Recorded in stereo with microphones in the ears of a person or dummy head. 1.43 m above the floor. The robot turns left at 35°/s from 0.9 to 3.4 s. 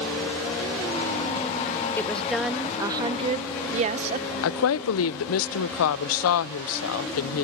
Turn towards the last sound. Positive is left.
turn(degrees=75)  # may be behind; listen again after turning